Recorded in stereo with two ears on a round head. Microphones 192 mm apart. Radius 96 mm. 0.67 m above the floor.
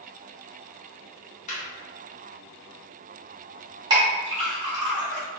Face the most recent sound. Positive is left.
turn(degrees=-20)  # may be behind; listen again after turning